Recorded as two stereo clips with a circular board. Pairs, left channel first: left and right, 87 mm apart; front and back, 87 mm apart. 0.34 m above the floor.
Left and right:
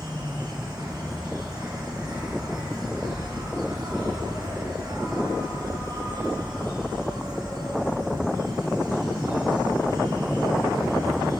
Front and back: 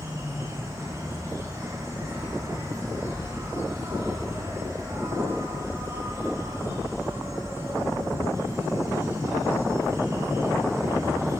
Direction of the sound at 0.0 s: 125° right.